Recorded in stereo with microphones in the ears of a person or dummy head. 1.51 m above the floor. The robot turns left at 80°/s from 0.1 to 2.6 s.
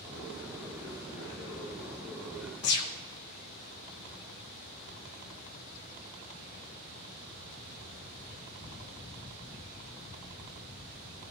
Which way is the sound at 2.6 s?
55° left (ahead or behind).